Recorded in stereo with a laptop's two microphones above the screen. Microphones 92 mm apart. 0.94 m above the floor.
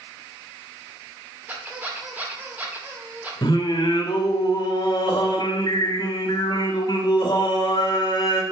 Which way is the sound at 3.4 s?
50° left (ahead or behind).